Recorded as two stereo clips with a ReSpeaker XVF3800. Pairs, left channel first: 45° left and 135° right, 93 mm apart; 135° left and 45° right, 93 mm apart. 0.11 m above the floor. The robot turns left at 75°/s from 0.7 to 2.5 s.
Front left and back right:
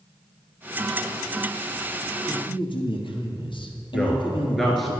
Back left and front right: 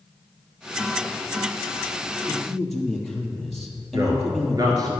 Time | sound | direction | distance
2.3 | a man speaking | 65° left | 3 m
3.9 | a man speaking | 45° right | 1.9 m